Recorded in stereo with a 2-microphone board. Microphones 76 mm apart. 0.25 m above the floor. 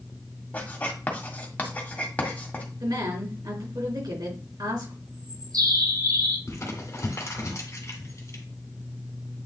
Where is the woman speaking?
70° right (ahead or behind), 3.5 m.